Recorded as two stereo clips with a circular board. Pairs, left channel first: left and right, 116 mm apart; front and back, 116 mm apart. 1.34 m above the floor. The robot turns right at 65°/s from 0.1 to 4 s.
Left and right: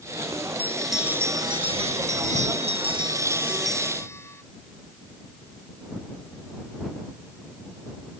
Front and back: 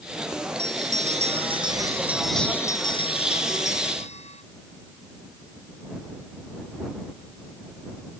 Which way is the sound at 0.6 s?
160° left.